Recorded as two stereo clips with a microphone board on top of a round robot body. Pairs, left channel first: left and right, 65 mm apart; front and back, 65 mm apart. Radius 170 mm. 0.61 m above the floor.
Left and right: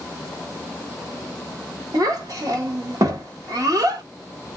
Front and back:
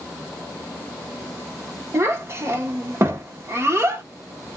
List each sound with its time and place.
1.9 s a child speaking: 125° right, 1.1 m